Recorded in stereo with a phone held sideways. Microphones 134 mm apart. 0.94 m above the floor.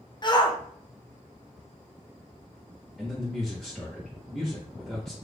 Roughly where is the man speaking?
Centre.